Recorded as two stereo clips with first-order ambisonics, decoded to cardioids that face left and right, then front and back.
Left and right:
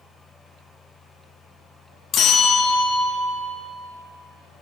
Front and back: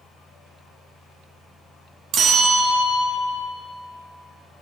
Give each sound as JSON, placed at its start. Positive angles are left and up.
{"t": 2.1, "sound": "a bell", "azimuth_deg": 135, "distance_m": 1.2}